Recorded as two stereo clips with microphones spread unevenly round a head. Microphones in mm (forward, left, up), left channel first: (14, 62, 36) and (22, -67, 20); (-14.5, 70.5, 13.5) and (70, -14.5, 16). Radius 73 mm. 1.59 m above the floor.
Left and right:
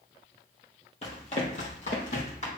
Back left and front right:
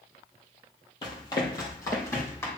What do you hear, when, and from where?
1.0 s running footsteps: 100° left, 2 m; by 2.5 s 70° left, 4 m